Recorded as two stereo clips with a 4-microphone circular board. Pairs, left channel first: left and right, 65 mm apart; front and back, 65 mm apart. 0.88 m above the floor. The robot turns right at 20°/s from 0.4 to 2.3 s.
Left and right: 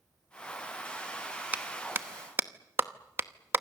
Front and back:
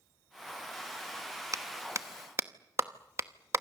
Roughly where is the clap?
Behind right.